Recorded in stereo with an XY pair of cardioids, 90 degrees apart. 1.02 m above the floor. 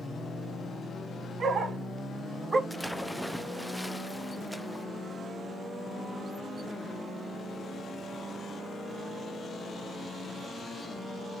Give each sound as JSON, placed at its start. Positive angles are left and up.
{"t": 1.4, "sound": "a dog barking", "azimuth_deg": -60, "distance_m": 3.0}
{"t": 2.7, "sound": "a splash", "azimuth_deg": -5, "distance_m": 0.5}